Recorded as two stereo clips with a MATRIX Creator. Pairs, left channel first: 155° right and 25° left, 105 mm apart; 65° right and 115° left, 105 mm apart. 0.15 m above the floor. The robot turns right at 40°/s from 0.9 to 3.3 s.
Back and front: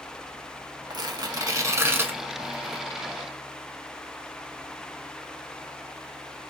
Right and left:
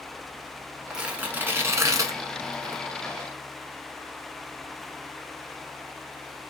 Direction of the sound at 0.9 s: 30° left.